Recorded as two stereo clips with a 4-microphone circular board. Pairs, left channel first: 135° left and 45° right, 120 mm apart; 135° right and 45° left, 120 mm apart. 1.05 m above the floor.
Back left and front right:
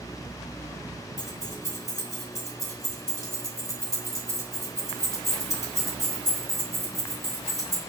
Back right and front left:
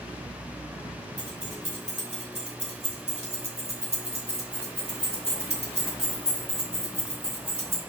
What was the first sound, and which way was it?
Keys jangling, 70° left.